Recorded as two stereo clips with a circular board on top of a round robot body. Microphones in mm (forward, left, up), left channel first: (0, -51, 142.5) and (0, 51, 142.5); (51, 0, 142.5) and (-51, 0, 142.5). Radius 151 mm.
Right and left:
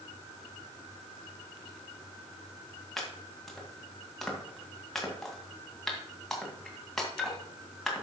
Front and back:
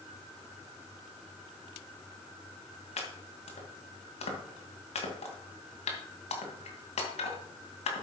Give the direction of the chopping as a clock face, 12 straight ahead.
12 o'clock.